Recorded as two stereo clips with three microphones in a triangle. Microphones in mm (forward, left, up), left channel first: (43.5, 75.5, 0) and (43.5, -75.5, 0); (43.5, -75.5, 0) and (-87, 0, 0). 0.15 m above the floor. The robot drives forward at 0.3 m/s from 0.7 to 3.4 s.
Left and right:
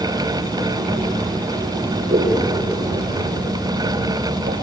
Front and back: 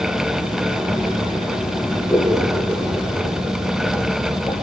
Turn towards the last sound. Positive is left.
turn(degrees=-115)